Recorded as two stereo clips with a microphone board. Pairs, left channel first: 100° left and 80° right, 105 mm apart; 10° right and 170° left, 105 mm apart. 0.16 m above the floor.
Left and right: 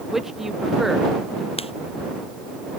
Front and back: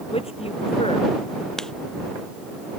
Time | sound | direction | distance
0.1 | a man speaking | 10° left | ?
1.6 | writing | 75° left | ?